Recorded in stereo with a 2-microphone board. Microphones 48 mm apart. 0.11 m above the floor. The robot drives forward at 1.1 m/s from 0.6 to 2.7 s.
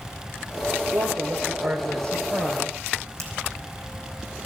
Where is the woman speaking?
55° right (ahead or behind), 3 m.